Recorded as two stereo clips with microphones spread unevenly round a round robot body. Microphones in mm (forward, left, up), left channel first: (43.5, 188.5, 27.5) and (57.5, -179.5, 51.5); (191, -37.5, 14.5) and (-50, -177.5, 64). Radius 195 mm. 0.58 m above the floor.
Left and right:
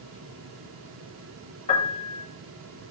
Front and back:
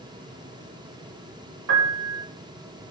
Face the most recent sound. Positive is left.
turn(degrees=165)